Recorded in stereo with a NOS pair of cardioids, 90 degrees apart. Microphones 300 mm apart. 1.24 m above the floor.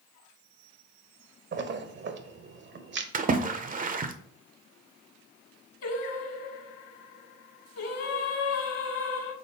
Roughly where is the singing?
Ahead left.